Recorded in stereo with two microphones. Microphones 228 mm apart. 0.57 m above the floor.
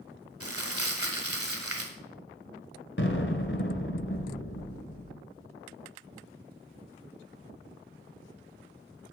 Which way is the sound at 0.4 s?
85° right.